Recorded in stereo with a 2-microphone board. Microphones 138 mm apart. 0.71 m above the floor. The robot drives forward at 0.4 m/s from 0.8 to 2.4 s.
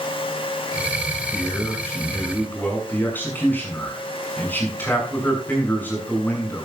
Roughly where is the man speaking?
Centre.